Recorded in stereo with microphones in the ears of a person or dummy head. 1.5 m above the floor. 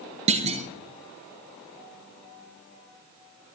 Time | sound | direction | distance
0.3 | a clunk | 35° right (ahead or behind) | 0.7 m